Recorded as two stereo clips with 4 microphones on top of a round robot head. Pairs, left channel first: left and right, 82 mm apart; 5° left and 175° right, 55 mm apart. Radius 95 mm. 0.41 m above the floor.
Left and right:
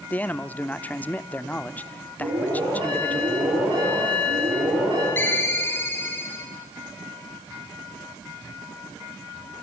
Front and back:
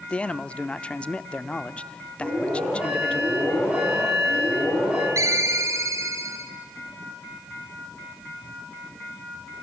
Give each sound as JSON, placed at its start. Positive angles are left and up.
{"t": 0.1, "sound": "a man speaking", "azimuth_deg": 45, "distance_m": 0.8}
{"t": 2.2, "sound": "an alarm", "azimuth_deg": -105, "distance_m": 10.0}
{"t": 5.2, "sound": "a ringtone", "azimuth_deg": 155, "distance_m": 1.9}